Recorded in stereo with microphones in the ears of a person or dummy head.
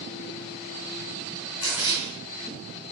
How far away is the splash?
About 3 m.